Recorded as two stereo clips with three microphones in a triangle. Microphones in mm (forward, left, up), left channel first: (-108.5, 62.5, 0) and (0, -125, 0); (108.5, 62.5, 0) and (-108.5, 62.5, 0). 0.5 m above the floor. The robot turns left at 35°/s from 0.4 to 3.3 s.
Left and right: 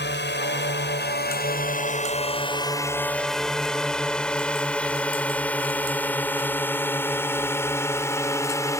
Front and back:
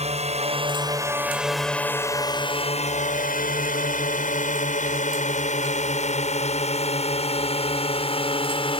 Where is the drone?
130° left; by 8.8 s 50° left.